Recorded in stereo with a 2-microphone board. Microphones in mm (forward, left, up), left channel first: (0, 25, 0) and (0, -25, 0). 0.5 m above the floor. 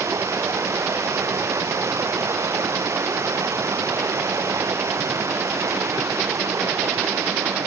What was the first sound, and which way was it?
Running water, 85° right.